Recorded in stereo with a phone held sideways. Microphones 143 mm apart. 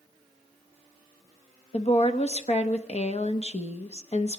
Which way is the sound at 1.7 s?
45° left (ahead or behind).